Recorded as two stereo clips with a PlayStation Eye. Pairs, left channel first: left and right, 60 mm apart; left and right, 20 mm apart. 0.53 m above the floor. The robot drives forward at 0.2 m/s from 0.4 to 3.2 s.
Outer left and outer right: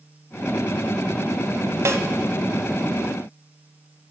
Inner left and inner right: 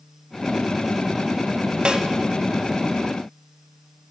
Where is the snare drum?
55° right (ahead or behind), 0.7 m; by 2.0 s 60° right (ahead or behind), 0.7 m.